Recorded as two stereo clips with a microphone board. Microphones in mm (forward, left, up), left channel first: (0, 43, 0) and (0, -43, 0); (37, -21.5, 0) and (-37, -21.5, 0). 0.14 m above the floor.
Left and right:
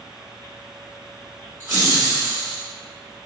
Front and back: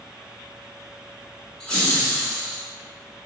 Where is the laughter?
65° right, 1.8 m.